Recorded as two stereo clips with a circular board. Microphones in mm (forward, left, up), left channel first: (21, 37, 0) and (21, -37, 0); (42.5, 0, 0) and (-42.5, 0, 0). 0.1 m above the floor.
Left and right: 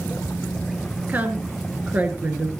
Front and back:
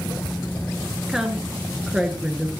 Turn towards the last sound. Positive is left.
turn(degrees=-105)